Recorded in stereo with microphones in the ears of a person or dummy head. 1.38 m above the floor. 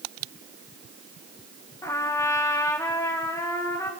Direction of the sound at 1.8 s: 25° left (ahead or behind).